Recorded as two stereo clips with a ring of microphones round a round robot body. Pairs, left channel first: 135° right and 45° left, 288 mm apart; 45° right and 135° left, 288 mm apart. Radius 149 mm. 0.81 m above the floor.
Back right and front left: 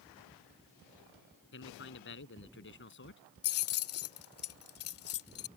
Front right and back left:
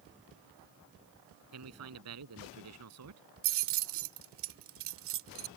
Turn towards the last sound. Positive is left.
turn(degrees=180)